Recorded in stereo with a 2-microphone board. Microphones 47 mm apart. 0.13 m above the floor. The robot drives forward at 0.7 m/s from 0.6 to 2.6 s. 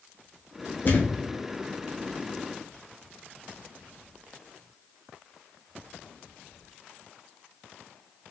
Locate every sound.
0.8 s a thud: 45° left (ahead or behind), 1.4 m; by 1.2 s 55° left (ahead or behind), 1.2 m